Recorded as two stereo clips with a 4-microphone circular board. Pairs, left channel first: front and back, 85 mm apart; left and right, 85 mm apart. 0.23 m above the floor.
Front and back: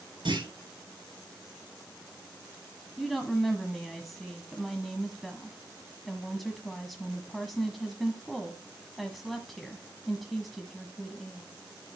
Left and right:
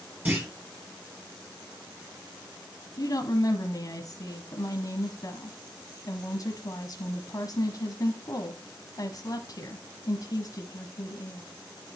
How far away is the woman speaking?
About 1.5 m.